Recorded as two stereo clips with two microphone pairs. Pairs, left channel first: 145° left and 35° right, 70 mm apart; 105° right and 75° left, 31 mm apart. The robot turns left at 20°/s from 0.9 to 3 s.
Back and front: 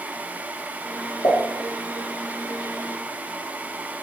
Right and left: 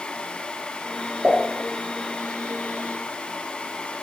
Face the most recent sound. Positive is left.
turn(degrees=75)